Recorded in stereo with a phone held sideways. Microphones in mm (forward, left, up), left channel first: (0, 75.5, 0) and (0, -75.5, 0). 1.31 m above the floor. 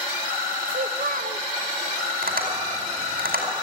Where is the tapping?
80° right, 4.5 m.